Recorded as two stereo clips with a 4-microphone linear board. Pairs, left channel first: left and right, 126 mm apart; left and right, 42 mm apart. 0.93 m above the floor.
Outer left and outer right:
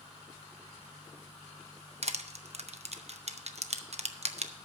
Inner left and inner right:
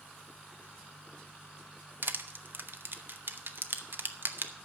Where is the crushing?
60° right (ahead or behind), 0.8 m.